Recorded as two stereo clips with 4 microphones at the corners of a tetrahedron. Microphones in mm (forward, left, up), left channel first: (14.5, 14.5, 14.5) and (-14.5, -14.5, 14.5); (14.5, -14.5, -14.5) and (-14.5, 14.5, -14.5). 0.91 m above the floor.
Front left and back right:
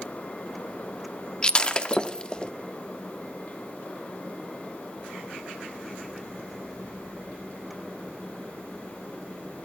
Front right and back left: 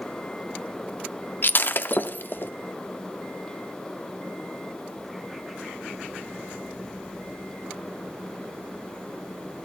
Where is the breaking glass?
15° right, 0.6 m.